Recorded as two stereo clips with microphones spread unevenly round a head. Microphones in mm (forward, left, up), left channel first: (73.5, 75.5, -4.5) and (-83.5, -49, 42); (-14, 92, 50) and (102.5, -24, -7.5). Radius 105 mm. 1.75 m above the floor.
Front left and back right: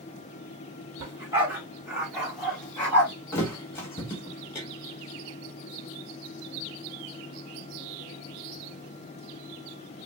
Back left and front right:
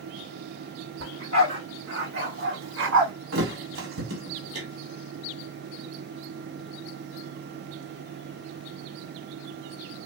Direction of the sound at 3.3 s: 45° right.